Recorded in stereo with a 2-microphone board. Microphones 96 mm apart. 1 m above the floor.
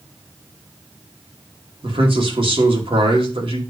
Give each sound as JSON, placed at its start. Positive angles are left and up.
{"t": 1.8, "sound": "a man speaking", "side_deg": -70, "distance_m": 2.5}